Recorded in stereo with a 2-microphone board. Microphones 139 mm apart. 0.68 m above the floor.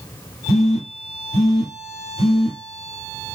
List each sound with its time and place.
0.5 s a phone buzzing: 50° left (ahead or behind), 1.7 m